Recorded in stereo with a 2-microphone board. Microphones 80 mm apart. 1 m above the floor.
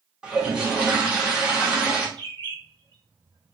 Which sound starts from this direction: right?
A bird, at 2.2 s.